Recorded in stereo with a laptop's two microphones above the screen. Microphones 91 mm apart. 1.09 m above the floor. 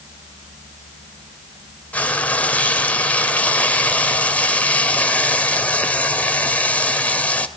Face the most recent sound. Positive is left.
turn(degrees=15)  # may be behind; listen again after turning